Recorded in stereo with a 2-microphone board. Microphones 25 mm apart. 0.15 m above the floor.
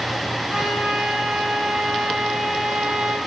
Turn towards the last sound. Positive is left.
turn(degrees=-40)  # may be behind; listen again after turning